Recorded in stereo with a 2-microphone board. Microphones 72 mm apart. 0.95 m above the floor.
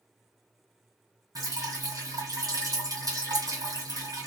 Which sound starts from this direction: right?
Dripping, at 1.4 s.